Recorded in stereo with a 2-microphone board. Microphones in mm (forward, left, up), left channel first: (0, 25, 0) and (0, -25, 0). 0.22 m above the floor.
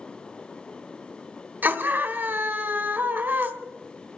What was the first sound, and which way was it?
A scream, 40° right (ahead or behind).